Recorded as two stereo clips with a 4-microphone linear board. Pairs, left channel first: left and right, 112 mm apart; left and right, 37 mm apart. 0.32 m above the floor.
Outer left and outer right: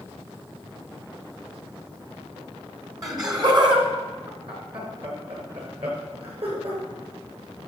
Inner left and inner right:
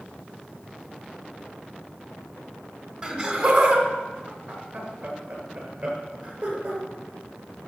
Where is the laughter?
35° right (ahead or behind), 1.8 m; by 6.8 s 60° right (ahead or behind), 5 m.